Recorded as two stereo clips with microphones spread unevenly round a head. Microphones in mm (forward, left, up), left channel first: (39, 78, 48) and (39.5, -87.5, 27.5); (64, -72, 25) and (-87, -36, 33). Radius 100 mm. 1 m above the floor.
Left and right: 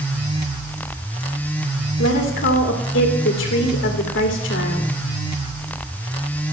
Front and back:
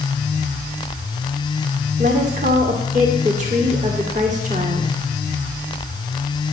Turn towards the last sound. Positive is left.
turn(degrees=110)